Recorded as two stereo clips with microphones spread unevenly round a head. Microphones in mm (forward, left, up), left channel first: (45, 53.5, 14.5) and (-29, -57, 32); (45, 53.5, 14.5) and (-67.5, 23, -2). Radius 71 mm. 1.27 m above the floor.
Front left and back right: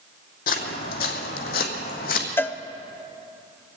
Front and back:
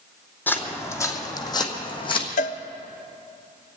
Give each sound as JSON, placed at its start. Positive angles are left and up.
{"t": 0.5, "sound": "footsteps", "azimuth_deg": 80, "distance_m": 1.9}
{"t": 2.4, "sound": "a cowbell", "azimuth_deg": -10, "distance_m": 0.6}